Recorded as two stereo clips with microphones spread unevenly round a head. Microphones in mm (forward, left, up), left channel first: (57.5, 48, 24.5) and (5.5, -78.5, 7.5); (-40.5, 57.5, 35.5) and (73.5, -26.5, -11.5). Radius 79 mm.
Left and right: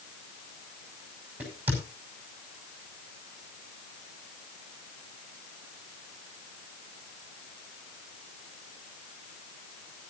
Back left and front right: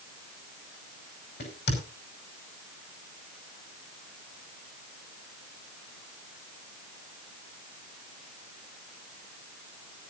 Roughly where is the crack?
Behind.